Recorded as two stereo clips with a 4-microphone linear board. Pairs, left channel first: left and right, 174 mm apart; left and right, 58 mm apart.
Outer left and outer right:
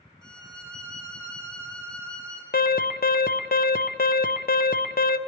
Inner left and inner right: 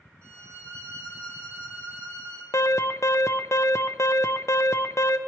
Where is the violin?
25° left (ahead or behind), 2.5 m.